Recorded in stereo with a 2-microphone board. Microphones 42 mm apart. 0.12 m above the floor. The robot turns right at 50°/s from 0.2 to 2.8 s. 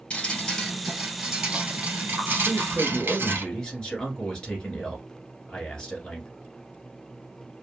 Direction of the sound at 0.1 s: 140° left.